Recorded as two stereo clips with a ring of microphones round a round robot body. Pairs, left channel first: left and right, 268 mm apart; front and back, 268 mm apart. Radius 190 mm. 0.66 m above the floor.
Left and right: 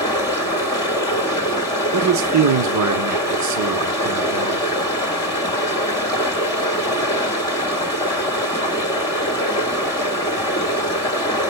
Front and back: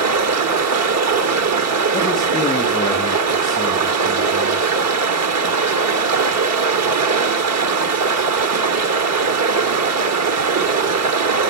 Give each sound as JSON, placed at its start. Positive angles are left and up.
{"t": 0.0, "sound": "running water", "azimuth_deg": 170, "distance_m": 1.6}
{"t": 1.9, "sound": "a man speaking", "azimuth_deg": -80, "distance_m": 1.5}